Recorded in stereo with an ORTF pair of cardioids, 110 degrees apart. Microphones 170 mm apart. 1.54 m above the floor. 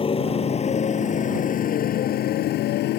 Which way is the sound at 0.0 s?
35° left.